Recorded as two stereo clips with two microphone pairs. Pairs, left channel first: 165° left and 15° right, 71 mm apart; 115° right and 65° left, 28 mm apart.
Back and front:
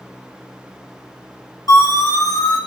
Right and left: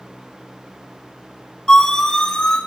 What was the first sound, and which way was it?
A siren, 170° right.